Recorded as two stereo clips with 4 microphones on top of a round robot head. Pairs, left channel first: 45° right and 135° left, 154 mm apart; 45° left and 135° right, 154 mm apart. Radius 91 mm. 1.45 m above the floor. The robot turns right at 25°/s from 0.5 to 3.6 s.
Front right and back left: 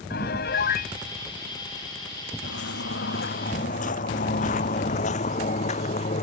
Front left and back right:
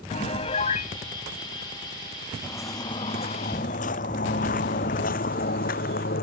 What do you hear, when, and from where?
0.1 s a piano: 15° right; by 0.9 s straight ahead
2.4 s footsteps: 35° right; by 6.2 s 10° left